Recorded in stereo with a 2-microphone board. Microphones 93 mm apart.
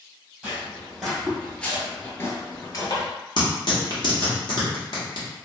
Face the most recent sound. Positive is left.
turn(degrees=55)  # may be behind; listen again after turning